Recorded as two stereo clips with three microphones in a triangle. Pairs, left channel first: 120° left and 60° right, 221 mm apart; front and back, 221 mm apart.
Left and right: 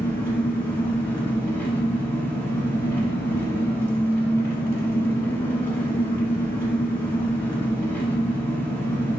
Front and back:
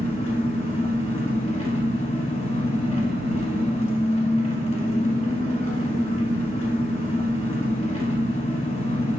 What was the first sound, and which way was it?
An engine running, 45° left.